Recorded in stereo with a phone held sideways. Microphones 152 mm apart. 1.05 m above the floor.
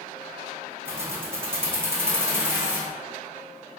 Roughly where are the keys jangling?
Centre.